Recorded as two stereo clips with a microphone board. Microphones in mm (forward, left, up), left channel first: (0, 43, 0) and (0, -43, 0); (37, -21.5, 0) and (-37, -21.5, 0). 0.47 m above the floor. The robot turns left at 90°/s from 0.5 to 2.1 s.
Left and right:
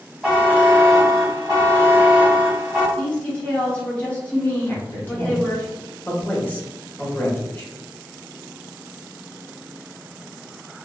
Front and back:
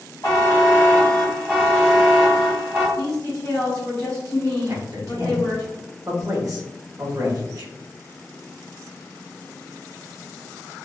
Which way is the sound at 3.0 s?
25° left.